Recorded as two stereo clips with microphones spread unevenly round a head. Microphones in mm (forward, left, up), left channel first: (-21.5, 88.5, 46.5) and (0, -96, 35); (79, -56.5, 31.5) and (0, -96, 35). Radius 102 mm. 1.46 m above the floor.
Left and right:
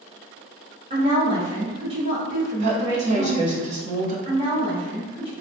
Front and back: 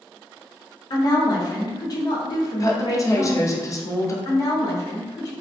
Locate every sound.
0.9 s a woman speaking: 20° right, 0.9 m
2.6 s a woman speaking: 30° right, 0.7 m
4.2 s a woman speaking: 20° right, 1.1 m